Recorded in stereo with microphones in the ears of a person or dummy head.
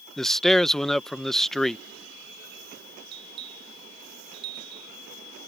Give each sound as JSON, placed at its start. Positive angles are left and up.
{"t": 0.2, "sound": "a man speaking", "side_deg": 0}
{"t": 3.1, "sound": "a bell", "side_deg": -30}